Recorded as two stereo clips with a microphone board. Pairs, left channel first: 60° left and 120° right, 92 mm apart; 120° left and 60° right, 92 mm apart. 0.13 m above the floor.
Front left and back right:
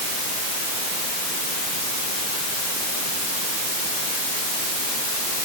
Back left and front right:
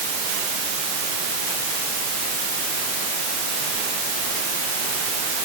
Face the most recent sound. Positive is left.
No sound to turn to.